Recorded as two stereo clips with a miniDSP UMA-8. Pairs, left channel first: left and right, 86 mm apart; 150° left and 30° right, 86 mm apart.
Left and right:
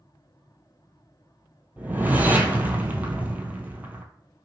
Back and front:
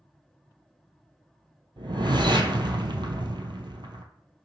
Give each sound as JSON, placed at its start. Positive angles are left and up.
{"t": 1.8, "sound": "a whoosh", "azimuth_deg": -20, "distance_m": 0.7}